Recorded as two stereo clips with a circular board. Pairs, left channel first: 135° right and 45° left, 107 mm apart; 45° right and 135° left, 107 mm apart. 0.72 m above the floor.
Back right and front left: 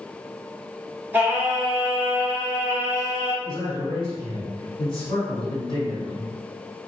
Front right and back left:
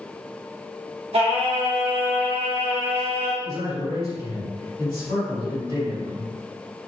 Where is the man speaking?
Straight behind, 1.8 m.